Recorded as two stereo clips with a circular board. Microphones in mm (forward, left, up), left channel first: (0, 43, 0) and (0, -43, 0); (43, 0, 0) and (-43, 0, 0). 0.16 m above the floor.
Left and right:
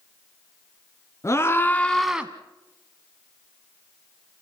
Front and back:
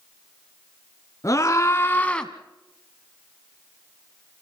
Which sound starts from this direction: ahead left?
A scream, at 1.2 s.